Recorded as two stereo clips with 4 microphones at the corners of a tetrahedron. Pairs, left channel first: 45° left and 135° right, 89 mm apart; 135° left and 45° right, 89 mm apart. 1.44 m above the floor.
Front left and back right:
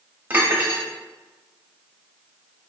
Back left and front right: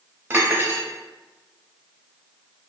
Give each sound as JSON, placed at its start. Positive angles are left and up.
{"t": 0.3, "sound": "cutlery clinking", "azimuth_deg": -85, "distance_m": 0.8}